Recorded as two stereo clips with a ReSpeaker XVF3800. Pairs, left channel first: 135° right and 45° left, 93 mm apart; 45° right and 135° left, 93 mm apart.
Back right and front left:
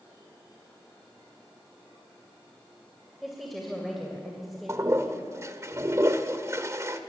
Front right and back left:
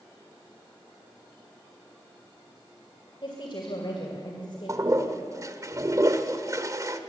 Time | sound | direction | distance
3.2 | a woman speaking | 45° right | 2.5 m
4.7 | a toilet flushing | 95° left | 1.1 m